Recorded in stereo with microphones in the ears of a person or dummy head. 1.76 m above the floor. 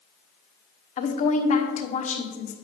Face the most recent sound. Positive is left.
turn(degrees=40)  # may be behind; listen again after turning